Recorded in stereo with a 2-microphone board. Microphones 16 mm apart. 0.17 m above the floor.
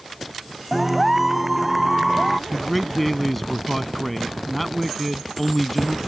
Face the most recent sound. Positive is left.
turn(degrees=10)  # may be behind; listen again after turning